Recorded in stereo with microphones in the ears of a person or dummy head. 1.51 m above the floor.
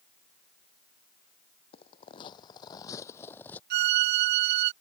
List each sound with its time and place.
1.7 s footsteps: 30° left (ahead or behind); by 3.6 s 10° left (ahead or behind)
3.7 s a violin: 55° right (ahead or behind)